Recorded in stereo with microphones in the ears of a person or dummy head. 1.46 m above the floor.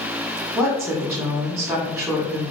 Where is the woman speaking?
5° right (ahead or behind), 1.4 m.